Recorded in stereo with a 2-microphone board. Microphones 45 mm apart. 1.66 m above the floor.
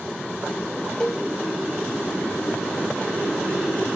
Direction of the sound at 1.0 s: 15° left (ahead or behind).